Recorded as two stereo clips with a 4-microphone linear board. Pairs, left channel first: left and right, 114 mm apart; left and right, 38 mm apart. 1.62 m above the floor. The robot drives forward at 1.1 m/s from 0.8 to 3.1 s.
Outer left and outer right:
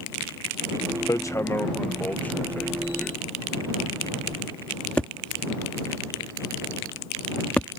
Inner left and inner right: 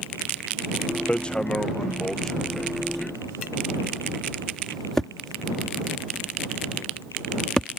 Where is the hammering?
30° left (ahead or behind); by 7.7 s 10° left (ahead or behind).